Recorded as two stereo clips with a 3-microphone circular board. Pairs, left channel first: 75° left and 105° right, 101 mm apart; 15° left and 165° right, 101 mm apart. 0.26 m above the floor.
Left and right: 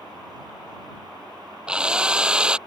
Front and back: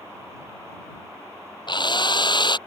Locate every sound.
1.7 s a drill: 25° right